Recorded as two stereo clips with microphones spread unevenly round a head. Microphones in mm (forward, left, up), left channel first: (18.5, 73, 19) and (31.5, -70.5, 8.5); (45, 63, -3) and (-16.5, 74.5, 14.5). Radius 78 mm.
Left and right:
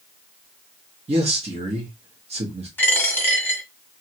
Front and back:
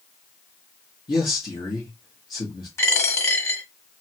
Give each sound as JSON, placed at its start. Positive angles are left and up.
{"t": 1.1, "sound": "a man speaking", "azimuth_deg": -35, "distance_m": 0.9}
{"t": 2.8, "sound": "a dropped coin", "azimuth_deg": 25, "distance_m": 1.3}